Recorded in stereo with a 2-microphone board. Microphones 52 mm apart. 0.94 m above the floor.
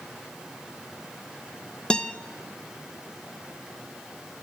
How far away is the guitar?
About 0.5 m.